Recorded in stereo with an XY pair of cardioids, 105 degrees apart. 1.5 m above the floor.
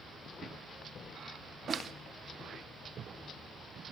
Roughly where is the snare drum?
Ahead right.